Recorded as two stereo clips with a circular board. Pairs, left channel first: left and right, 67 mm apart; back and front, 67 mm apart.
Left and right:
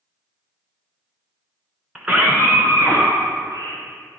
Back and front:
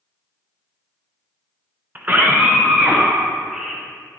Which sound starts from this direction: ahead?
A scream, at 1.9 s.